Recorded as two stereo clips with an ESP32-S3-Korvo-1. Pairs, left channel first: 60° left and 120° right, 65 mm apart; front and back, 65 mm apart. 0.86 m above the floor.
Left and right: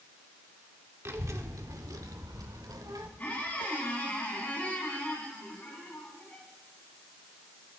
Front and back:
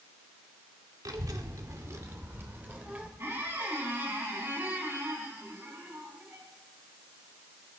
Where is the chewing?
No chewing in this recording.